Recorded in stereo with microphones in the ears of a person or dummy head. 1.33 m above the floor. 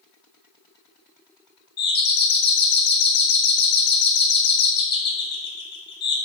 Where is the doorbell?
50° left (ahead or behind), 0.7 m.